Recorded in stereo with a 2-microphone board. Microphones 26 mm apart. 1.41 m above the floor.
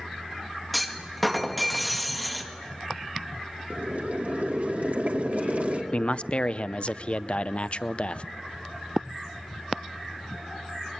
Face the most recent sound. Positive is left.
turn(degrees=45)  # may be behind; listen again after turning